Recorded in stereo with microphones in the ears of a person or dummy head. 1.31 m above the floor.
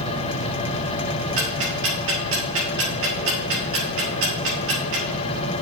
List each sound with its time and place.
1.4 s ticking: 75° right (ahead or behind), 3 m